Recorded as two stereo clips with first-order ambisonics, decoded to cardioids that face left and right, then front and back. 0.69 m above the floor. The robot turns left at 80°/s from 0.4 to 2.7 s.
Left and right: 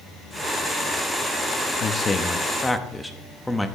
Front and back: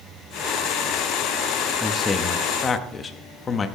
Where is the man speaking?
80° left, 0.6 m; by 3.7 s 10° left, 0.6 m.